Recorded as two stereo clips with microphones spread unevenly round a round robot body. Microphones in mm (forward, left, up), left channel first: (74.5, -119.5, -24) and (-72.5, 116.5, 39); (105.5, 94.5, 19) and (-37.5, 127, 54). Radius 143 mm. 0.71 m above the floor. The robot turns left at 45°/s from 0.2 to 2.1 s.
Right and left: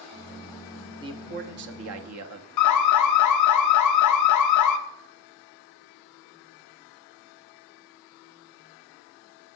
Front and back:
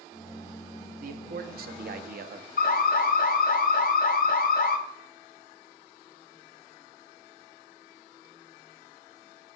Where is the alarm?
35° right, 0.7 m.